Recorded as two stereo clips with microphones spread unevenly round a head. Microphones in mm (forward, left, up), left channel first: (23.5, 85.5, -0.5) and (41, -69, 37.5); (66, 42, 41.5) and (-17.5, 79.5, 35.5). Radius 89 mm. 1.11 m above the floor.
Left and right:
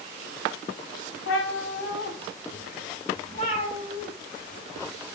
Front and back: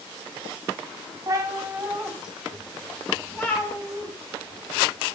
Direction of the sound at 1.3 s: 110° left.